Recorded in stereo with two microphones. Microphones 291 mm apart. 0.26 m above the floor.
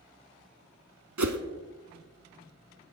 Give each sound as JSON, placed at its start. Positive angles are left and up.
{"t": 1.2, "sound": "a whoosh", "side_deg": -80, "distance_m": 0.8}